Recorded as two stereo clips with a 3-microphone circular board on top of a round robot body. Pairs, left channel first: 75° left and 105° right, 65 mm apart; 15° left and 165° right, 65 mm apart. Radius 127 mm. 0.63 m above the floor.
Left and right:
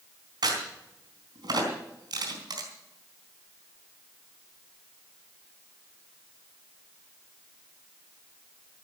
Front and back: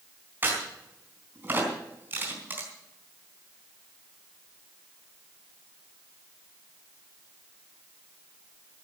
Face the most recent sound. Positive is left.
turn(degrees=-105)